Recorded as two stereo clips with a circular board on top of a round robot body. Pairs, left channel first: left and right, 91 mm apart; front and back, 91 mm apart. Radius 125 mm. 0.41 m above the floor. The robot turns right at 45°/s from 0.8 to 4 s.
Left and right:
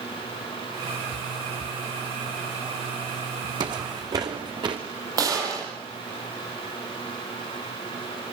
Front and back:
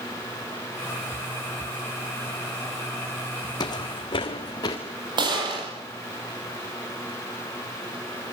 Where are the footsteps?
50° right, 2 m.